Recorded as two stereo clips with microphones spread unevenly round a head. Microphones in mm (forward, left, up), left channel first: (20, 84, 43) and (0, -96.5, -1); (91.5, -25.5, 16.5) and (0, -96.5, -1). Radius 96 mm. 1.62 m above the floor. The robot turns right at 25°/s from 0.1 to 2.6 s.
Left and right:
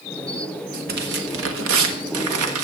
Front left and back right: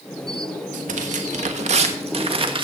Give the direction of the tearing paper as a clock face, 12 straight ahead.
5 o'clock.